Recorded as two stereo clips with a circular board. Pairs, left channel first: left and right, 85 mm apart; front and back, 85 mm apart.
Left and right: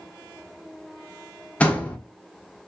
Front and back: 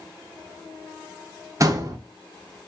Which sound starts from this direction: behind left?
A door slam, at 1.6 s.